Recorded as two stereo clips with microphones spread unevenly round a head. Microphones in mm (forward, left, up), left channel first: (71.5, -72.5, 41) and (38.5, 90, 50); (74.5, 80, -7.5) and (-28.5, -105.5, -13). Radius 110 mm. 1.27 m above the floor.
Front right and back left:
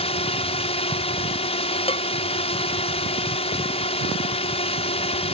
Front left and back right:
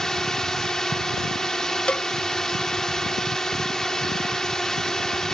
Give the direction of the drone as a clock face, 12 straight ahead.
1 o'clock.